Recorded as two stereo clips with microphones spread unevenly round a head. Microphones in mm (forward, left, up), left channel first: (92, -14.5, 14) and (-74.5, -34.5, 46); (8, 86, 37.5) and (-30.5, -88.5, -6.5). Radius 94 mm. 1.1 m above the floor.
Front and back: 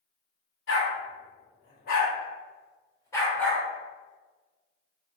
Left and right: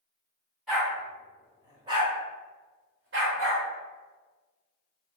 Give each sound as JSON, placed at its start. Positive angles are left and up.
{"t": 0.7, "sound": "a dog barking", "azimuth_deg": -10, "distance_m": 1.9}